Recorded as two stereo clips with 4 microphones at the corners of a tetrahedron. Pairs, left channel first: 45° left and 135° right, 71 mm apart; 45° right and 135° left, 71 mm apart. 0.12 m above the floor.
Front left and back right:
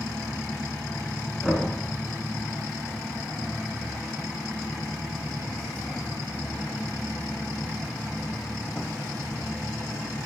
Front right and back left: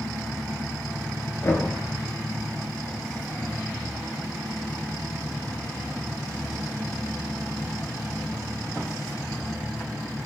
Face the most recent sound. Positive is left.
turn(degrees=-50)